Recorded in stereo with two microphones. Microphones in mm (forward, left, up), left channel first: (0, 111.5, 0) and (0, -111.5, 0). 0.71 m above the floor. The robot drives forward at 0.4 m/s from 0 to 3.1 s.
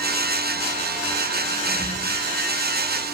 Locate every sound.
1.7 s a squeak: 5° left (ahead or behind), 2.5 m